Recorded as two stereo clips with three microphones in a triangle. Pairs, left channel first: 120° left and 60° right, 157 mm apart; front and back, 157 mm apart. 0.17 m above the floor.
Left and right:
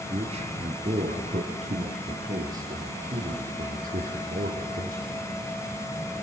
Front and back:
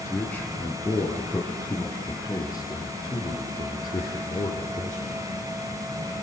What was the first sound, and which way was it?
A man speaking, 75° right.